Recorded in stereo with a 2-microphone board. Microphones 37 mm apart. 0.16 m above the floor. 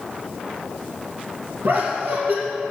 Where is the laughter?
55° right (ahead or behind), 4 m.